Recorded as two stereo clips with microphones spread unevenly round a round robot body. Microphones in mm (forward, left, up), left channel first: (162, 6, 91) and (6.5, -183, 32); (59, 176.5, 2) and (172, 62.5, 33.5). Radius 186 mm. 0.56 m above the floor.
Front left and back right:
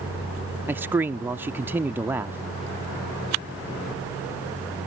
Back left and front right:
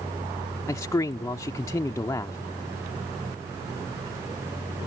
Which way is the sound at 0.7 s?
175° left.